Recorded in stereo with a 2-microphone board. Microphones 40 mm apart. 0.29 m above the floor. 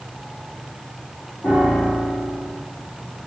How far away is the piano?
About 4 m.